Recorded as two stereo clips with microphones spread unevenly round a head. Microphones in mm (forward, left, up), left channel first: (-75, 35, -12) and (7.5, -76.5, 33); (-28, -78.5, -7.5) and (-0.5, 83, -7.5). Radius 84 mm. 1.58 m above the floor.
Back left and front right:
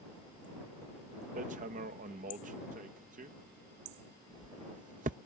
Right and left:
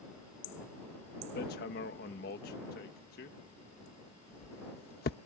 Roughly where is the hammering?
Right.